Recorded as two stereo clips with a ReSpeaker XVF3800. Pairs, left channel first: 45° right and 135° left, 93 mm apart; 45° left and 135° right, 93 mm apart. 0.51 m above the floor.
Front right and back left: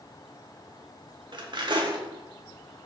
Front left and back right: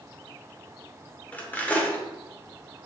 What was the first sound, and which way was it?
Cutlery clinking, 115° left.